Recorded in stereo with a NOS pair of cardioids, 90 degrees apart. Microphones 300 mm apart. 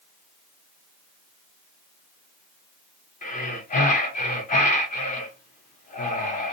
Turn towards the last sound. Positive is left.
turn(degrees=25)